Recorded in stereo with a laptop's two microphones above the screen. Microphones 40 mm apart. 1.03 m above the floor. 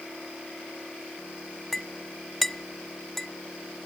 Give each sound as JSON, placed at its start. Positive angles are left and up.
{"t": 1.7, "sound": "a clink", "side_deg": 5}